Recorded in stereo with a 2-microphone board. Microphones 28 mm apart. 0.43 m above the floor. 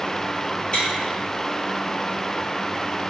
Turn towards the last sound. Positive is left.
turn(degrees=40)  # may be behind; listen again after turning